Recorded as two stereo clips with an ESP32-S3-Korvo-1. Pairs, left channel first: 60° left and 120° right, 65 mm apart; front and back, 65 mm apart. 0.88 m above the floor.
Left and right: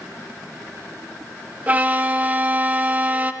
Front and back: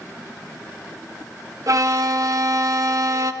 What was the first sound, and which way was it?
A violin, straight behind.